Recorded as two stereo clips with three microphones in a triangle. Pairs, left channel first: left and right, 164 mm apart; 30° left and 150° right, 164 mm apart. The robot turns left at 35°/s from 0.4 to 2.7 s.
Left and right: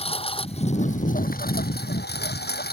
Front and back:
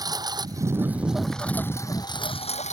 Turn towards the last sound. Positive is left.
turn(degrees=75)